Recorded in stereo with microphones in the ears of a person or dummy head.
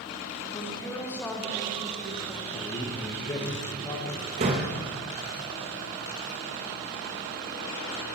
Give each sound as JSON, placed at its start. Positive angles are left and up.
{"t": 0.5, "sound": "a woman speaking", "side_deg": 20, "distance_m": 2.0}
{"t": 2.5, "sound": "a man speaking", "side_deg": 20, "distance_m": 1.6}
{"t": 4.4, "sound": "a door slam", "side_deg": -25, "distance_m": 0.9}